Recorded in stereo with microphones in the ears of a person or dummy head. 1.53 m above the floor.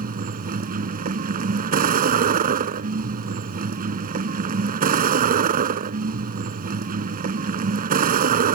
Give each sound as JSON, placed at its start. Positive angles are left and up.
{"t": 0.0, "sound": "a vehicle", "side_deg": -55}